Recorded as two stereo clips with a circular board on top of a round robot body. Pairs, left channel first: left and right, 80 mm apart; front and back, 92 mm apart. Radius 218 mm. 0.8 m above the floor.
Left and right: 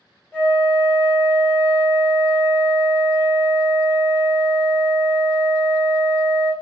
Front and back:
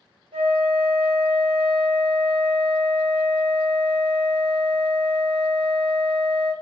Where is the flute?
160° left, 1.4 m.